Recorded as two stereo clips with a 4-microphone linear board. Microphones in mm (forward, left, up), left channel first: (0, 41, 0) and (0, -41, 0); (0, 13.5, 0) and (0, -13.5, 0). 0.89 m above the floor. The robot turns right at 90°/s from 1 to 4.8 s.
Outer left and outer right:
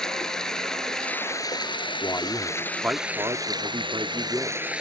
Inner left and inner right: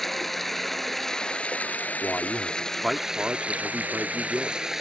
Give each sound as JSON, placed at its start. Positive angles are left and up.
{"t": 0.0, "sound": "running water", "azimuth_deg": 5}
{"t": 2.0, "sound": "a man speaking", "azimuth_deg": 130}